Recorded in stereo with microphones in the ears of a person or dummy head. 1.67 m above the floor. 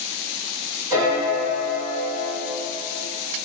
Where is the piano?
10° right (ahead or behind), 1.2 m.